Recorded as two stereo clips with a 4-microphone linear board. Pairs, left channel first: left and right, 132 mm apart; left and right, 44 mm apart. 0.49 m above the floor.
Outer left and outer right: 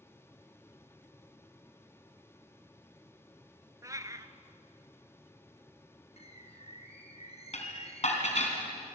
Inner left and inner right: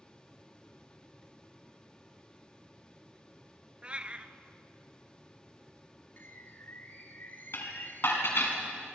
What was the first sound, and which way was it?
A cat meowing, 25° right (ahead or behind).